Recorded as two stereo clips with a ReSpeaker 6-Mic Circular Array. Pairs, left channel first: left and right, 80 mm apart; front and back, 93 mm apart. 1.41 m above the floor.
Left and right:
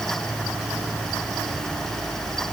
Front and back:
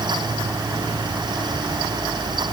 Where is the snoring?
No snoring in this recording.